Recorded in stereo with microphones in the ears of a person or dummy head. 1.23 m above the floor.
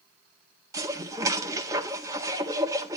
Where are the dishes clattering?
20° right (ahead or behind), 1.5 m.